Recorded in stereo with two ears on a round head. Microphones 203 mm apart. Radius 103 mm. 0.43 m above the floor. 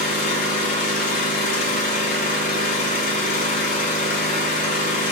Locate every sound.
0.0 s an engine running: 35° left (ahead or behind), 4.5 m